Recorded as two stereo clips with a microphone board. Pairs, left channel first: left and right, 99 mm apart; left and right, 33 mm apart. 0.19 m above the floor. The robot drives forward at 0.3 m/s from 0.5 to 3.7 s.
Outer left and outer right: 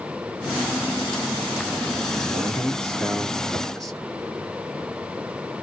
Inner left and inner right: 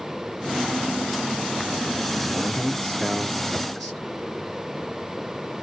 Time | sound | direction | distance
2.3 | a man speaking | 5° left (ahead or behind) | 2.5 m